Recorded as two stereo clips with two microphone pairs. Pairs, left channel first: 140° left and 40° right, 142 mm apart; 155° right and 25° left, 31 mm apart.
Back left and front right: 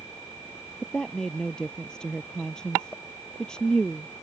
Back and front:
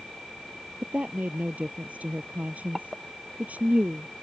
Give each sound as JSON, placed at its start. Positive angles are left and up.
{"t": 0.8, "sound": "a woman speaking", "azimuth_deg": 55}